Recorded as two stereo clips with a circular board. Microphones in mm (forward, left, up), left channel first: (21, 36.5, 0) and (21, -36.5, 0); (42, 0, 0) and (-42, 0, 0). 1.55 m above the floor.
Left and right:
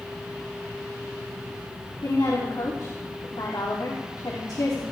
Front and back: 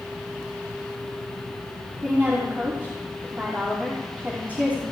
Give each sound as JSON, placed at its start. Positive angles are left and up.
{"t": 2.0, "sound": "a woman speaking", "azimuth_deg": 110, "distance_m": 3.0}